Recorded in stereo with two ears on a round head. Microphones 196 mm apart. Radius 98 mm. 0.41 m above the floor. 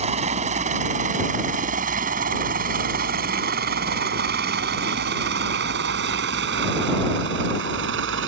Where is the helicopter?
30° right (ahead or behind); by 8.3 s 60° right (ahead or behind).